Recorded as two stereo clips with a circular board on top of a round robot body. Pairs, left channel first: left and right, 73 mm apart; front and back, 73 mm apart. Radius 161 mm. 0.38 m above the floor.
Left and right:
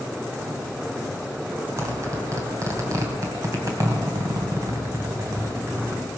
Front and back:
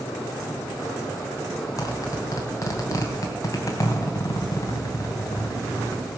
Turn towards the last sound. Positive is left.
turn(degrees=-45)